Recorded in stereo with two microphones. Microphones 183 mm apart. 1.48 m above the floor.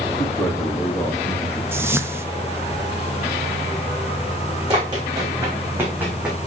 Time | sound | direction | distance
0.2 | a man speaking | 15° left (ahead or behind) | 4 m
1.7 | a whoosh | 10° right (ahead or behind) | 0.7 m
4.7 | running footsteps | 25° right (ahead or behind) | 6 m